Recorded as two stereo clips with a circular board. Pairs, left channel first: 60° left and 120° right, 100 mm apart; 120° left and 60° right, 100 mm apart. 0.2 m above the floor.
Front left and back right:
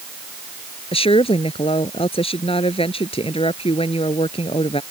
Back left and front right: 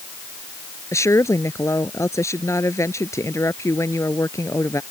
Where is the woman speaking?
60° left.